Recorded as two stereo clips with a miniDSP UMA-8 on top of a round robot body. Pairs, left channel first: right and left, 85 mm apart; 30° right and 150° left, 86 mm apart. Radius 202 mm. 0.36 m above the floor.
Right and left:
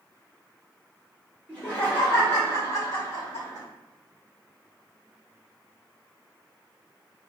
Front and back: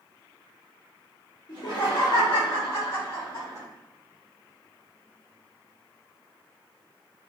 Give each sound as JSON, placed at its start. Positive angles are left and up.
{"t": 1.5, "sound": "laughter", "azimuth_deg": -15, "distance_m": 2.0}